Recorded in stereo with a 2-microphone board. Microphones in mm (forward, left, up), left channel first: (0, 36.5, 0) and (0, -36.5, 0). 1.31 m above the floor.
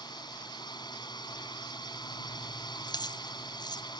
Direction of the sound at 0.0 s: 80° left.